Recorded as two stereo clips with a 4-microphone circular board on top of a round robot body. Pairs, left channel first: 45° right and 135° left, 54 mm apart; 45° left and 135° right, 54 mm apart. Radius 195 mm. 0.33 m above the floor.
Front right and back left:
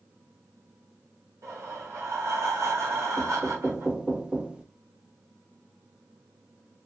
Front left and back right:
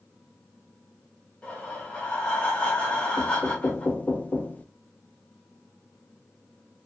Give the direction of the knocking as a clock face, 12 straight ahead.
9 o'clock.